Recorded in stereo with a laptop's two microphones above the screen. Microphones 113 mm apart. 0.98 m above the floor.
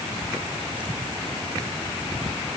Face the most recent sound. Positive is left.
No sound to turn to.